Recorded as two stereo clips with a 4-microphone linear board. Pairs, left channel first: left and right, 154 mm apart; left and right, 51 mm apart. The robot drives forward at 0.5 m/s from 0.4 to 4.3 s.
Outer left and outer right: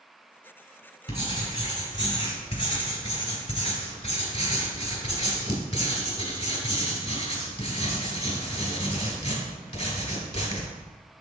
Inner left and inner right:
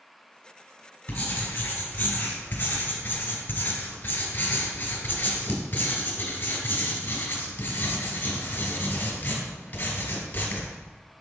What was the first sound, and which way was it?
Writing, 30° left (ahead or behind).